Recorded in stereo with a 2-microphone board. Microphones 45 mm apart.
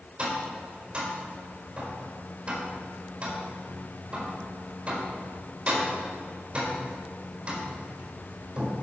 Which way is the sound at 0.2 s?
20° right (ahead or behind).